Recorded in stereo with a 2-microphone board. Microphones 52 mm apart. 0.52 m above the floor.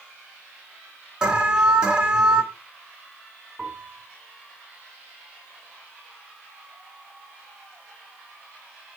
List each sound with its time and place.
1.2 s an alarm: 20° right (ahead or behind), 3 m
3.6 s a piano: 20° right (ahead or behind), 3.5 m